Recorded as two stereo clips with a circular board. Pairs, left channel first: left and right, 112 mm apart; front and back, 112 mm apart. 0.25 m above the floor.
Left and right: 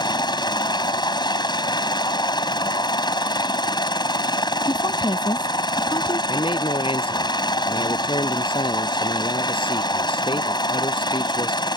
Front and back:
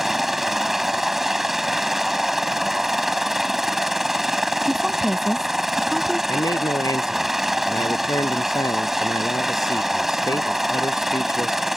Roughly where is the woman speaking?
Left.